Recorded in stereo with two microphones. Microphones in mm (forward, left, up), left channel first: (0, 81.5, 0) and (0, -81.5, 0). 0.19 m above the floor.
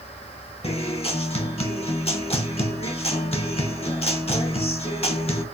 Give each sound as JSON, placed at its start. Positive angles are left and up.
{"t": 0.6, "sound": "a guitar", "side_deg": 35, "distance_m": 0.6}